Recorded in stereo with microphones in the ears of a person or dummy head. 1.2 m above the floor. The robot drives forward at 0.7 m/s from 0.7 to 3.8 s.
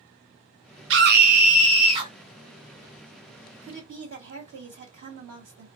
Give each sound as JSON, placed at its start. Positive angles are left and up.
{"t": 0.9, "sound": "a scream", "side_deg": -55, "distance_m": 0.6}
{"t": 3.6, "sound": "a woman speaking", "side_deg": -65, "distance_m": 1.3}